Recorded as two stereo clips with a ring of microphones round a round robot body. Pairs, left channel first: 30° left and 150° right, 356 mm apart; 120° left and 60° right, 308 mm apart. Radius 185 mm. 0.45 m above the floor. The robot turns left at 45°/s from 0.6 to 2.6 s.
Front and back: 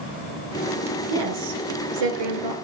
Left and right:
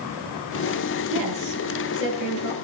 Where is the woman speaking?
120° right, 7 m; by 2.5 s 175° left, 7 m.